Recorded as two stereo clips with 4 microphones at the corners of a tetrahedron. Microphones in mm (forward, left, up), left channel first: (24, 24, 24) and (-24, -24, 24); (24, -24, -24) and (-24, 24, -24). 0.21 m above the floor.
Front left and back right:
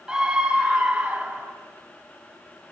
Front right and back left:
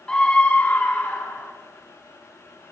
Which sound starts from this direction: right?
A scream, at 0.1 s.